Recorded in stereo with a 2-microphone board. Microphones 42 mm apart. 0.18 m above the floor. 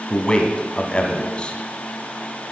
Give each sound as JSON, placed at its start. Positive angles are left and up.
{"t": 0.1, "sound": "a man speaking", "side_deg": 25, "distance_m": 1.2}